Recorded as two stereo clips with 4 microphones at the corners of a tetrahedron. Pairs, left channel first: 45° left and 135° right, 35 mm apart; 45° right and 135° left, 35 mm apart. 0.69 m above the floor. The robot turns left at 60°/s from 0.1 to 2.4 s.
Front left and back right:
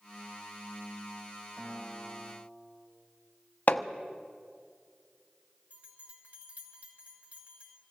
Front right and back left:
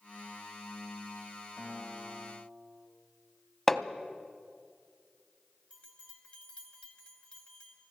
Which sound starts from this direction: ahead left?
Hammering, at 3.7 s.